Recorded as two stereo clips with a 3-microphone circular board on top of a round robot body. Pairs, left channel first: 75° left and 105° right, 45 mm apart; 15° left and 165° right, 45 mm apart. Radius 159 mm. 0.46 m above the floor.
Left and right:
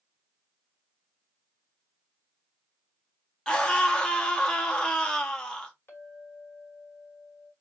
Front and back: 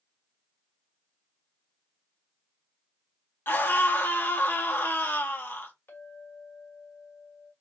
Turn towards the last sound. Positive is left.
turn(degrees=40)